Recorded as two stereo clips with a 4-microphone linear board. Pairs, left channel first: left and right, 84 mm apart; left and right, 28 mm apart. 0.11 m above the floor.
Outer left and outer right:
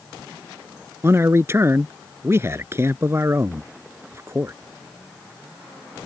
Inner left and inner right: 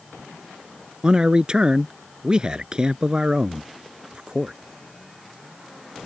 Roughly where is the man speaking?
Right.